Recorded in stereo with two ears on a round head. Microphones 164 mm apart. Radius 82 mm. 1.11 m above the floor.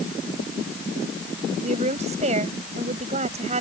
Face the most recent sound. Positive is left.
turn(degrees=-40)  # may be behind; listen again after turning